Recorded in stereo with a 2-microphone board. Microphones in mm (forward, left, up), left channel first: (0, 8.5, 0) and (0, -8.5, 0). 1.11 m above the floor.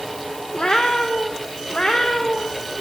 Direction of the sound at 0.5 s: 75° left (ahead or behind).